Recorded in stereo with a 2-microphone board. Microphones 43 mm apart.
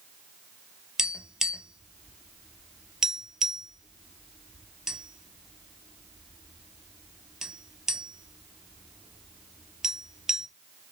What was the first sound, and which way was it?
Tapping, 10° right (ahead or behind).